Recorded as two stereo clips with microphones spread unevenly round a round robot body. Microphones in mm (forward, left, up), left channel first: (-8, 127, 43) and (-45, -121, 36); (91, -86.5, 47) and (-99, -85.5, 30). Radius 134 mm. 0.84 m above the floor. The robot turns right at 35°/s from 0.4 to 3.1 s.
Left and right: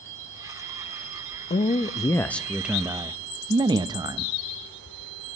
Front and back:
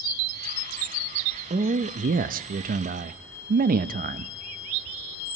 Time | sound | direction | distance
1.5 | a man speaking | 140° left | 0.5 m